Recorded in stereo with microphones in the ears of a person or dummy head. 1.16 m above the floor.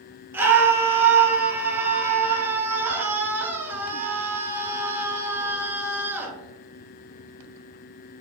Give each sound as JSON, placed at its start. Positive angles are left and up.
{"t": 0.3, "sound": "a scream", "side_deg": -5, "distance_m": 0.7}